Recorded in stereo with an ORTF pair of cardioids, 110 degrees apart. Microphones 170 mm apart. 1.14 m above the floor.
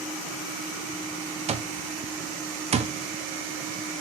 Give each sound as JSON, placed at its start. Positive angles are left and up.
{"t": 1.5, "sound": "an alarm clock", "azimuth_deg": -40, "distance_m": 0.6}